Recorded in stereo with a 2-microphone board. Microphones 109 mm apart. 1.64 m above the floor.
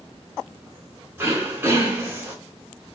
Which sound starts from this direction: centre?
Throat clearing, at 1.2 s.